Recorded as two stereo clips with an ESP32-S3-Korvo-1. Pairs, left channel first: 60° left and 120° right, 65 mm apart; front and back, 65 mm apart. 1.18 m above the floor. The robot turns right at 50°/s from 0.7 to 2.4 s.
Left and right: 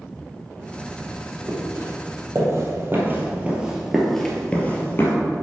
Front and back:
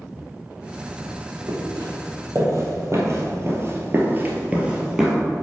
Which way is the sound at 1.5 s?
170° left.